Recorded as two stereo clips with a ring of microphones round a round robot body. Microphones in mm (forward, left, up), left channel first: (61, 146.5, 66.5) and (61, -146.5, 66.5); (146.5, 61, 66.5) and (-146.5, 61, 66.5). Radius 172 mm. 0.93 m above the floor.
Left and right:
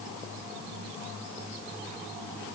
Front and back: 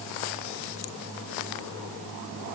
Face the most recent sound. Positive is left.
No sound to turn to.